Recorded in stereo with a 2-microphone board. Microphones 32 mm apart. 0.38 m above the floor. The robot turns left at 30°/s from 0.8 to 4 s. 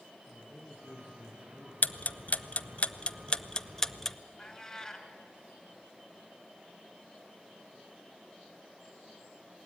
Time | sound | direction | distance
0.3 | a man speaking | 80° left | 7.5 m
1.8 | ticking | 55° left (ahead or behind) | 0.5 m
4.4 | a cat meowing | 10° left (ahead or behind) | 2 m